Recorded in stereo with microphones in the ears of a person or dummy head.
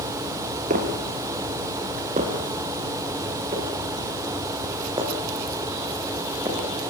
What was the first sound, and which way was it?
Footsteps, 40° right (ahead or behind).